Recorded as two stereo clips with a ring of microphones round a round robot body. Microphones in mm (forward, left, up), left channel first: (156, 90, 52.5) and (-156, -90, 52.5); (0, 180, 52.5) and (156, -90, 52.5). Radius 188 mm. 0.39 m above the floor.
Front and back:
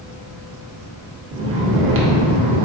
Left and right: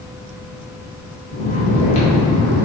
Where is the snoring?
Straight behind, 0.7 m.